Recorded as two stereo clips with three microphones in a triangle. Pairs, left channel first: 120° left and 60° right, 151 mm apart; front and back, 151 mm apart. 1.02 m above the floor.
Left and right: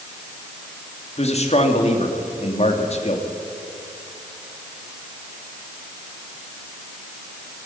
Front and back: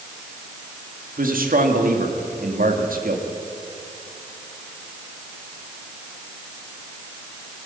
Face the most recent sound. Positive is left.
turn(degrees=165)